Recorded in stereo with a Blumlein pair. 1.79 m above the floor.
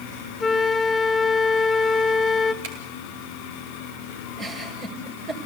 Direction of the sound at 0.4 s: 15° left.